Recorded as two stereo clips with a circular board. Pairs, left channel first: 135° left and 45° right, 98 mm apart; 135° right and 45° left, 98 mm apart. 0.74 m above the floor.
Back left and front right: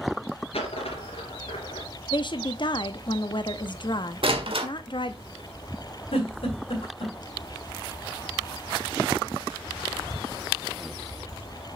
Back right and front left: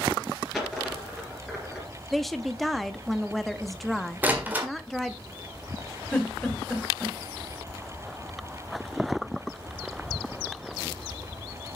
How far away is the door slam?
About 1.6 m.